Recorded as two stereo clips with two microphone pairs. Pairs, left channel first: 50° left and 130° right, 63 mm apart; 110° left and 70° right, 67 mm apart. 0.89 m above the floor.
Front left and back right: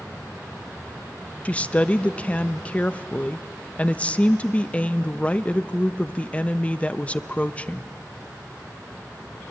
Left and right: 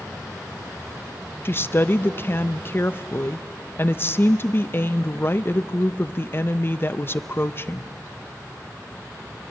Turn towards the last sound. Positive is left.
turn(degrees=95)